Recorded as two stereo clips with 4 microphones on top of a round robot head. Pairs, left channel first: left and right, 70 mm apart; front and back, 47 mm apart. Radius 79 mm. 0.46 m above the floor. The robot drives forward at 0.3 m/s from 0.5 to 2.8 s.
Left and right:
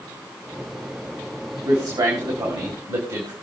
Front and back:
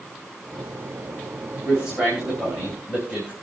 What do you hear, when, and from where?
1.6 s a man speaking: 110° right, 3.5 m; by 3.3 s 115° right, 3.5 m